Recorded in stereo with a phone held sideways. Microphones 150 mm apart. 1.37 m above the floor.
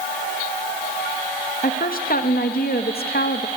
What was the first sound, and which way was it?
A woman speaking, 65° left (ahead or behind).